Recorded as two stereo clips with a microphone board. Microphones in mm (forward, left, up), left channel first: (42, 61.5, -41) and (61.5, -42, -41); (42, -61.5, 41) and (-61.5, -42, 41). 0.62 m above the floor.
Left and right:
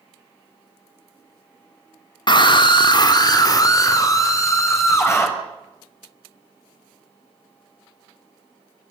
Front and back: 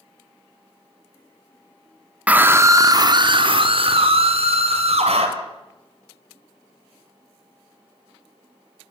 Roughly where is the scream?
Left.